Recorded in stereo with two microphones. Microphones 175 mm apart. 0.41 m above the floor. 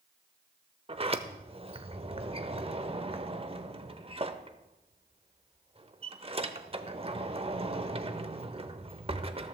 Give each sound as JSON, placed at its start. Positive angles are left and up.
{"t": 0.9, "sound": "a sliding door", "side_deg": -35, "distance_m": 0.7}